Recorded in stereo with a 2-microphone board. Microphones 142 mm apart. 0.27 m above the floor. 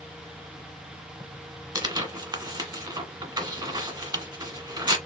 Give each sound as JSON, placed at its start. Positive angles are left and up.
{"t": 1.8, "sound": "tearing paper", "side_deg": -30, "distance_m": 1.1}